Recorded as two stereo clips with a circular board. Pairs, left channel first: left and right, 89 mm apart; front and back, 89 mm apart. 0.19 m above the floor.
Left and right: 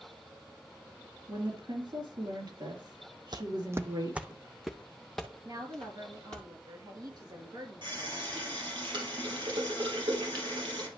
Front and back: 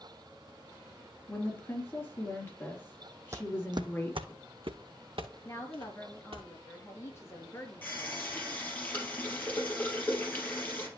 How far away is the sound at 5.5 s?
About 3 m.